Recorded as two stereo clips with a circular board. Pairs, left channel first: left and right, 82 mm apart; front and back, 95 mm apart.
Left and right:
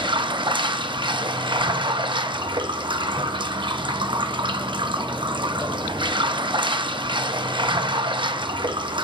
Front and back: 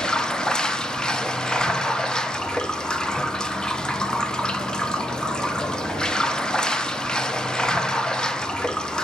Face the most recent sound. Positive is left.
turn(degrees=-80)